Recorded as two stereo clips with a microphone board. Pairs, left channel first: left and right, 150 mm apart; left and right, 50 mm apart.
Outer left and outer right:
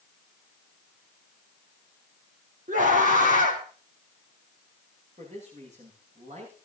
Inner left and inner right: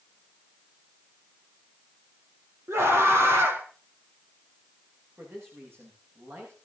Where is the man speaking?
50° right (ahead or behind), 9.5 m.